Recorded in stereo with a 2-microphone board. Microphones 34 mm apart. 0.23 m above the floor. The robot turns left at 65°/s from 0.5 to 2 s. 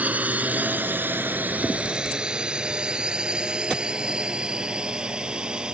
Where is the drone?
45° right (ahead or behind); by 5.8 s 25° right (ahead or behind).